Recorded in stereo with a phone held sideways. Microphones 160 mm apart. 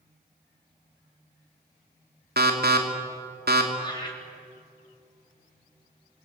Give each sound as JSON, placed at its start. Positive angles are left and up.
{"t": 2.4, "sound": "an alarm", "side_deg": -85, "distance_m": 3.0}
{"t": 3.8, "sound": "laughter", "side_deg": 30, "distance_m": 3.0}